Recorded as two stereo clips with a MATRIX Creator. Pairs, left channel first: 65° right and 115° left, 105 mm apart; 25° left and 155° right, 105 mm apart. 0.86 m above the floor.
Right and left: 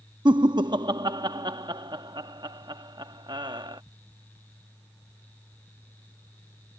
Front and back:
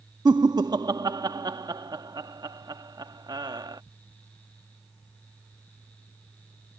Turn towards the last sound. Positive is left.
turn(degrees=155)